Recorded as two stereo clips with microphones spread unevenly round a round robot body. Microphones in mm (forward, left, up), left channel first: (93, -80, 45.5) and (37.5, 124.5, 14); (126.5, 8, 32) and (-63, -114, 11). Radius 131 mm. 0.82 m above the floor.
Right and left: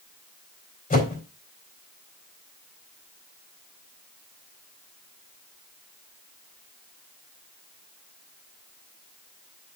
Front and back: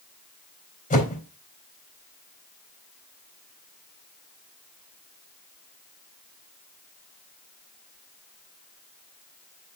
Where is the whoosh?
20° right, 4 m.